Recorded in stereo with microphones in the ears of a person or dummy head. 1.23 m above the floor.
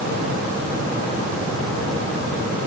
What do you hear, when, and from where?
Only background noise.